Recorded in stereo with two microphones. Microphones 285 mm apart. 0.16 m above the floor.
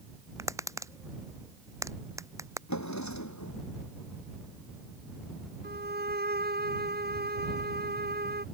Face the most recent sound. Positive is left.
turn(degrees=-35)  # may be behind; listen again after turning